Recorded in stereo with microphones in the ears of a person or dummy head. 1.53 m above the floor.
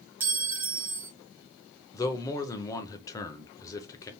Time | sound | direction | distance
0.2 | a clink | 10° right (ahead or behind) | 0.6 m
1.9 | a man speaking | 20° left (ahead or behind) | 1.0 m